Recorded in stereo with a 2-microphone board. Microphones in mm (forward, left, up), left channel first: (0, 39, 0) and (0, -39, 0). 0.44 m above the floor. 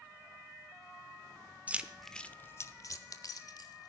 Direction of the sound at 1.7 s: 20° right (ahead or behind).